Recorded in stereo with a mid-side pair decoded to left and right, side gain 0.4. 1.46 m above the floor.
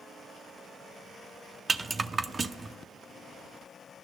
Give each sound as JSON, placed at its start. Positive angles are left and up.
{"t": 1.7, "sound": "a rattle", "azimuth_deg": -35, "distance_m": 0.6}